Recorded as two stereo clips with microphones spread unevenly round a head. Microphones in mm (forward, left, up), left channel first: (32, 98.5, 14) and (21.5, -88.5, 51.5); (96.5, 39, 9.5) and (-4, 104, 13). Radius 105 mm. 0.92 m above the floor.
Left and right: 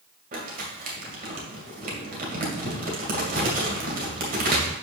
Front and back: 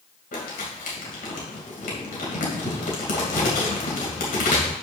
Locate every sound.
0.3 s crumpling: 50° right, 2.5 m